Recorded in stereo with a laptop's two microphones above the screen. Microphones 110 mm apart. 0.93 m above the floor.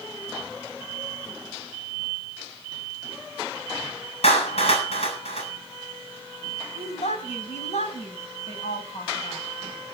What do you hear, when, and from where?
4.2 s a clap: 70° left (ahead or behind), 6.5 m
6.8 s a woman speaking: 75° left (ahead or behind), 5 m